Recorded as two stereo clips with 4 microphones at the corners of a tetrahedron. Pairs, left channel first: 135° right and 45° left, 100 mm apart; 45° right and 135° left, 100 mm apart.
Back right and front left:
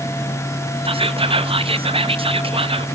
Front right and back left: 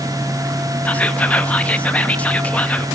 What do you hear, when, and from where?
0.8 s whispering: 30° left, 0.6 m